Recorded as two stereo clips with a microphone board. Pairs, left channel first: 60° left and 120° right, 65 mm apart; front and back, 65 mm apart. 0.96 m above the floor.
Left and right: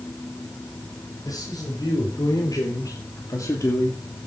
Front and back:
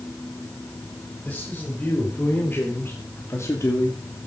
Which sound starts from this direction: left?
A man speaking, at 1.2 s.